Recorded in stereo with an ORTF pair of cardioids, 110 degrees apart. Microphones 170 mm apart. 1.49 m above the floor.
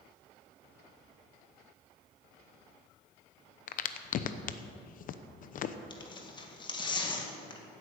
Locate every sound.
3.7 s a crack: 55° left, 0.9 m
5.9 s tearing paper: 25° left, 2 m